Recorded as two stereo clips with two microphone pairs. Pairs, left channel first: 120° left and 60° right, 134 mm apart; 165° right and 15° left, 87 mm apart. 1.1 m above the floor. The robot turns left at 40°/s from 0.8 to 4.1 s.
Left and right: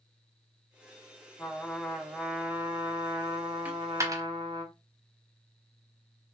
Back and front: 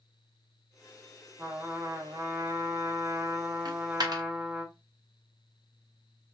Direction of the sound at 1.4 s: 55° left.